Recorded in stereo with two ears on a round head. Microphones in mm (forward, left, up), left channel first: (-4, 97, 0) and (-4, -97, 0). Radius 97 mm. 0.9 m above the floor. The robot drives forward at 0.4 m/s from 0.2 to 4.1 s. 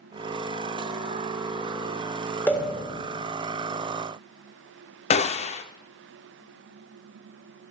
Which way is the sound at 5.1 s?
30° left (ahead or behind).